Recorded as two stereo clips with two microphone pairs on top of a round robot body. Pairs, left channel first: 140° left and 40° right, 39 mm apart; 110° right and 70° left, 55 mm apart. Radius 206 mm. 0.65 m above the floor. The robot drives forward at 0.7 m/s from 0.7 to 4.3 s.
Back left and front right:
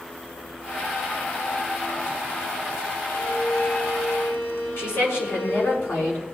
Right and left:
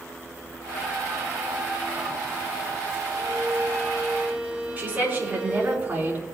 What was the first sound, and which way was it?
A violin, 110° left.